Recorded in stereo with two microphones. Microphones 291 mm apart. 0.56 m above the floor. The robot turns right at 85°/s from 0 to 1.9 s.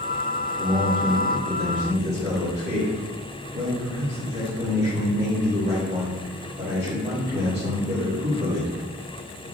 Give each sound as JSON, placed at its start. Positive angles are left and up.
{"t": 0.6, "sound": "a man speaking", "azimuth_deg": -165, "distance_m": 1.8}